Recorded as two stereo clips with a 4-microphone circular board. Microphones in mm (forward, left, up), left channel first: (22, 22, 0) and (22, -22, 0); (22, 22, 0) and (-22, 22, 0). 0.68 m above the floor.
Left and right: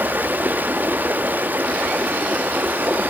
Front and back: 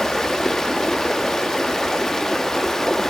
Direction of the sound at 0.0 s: 75° right.